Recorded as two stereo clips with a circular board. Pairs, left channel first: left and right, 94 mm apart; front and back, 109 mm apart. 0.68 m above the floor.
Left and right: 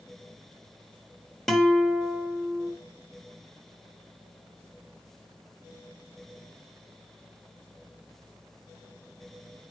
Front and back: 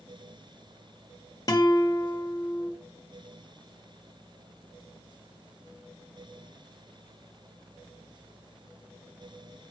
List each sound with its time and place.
1.5 s a guitar: 10° left, 1.2 m